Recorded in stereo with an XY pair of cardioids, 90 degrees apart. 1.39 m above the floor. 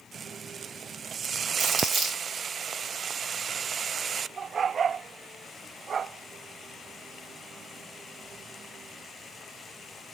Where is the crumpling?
70° right, 1.4 m.